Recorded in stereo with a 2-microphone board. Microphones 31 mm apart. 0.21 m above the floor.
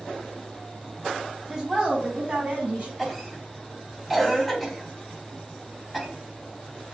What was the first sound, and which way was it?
A woman speaking, 10° right (ahead or behind).